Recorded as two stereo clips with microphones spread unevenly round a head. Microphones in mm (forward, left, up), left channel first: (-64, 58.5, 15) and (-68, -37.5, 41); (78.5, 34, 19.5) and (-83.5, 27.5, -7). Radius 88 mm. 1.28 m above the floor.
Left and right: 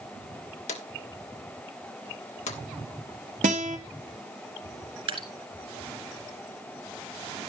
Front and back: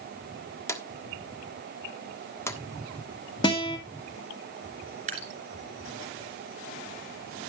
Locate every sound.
0.7 s a drawer: 70° left, 1.4 m
3.4 s a guitar: 65° right, 1.9 m
5.1 s dripping: 120° right, 3.5 m